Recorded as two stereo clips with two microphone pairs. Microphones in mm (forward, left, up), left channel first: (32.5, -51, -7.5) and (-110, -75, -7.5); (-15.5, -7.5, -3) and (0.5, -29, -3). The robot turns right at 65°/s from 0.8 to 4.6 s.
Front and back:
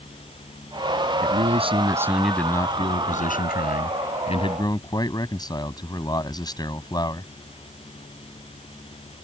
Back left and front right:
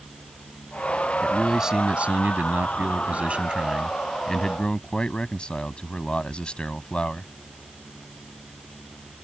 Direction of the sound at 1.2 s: 150° right.